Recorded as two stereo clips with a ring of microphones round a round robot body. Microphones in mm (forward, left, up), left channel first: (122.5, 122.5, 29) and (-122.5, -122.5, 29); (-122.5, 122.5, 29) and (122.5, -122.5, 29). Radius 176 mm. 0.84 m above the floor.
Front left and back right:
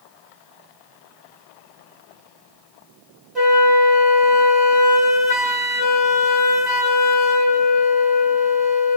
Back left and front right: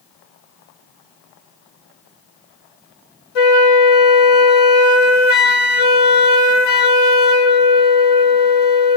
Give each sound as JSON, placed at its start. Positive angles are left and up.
{"t": 3.4, "sound": "a flute", "azimuth_deg": 135, "distance_m": 1.3}